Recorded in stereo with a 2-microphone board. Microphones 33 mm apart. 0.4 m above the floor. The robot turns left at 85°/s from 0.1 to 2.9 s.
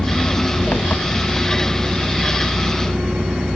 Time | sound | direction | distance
0.0 | an engine running | 135° left | ?